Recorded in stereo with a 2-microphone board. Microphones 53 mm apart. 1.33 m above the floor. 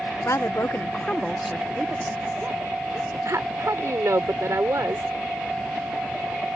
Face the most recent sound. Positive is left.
turn(degrees=-70)  # may be behind; listen again after turning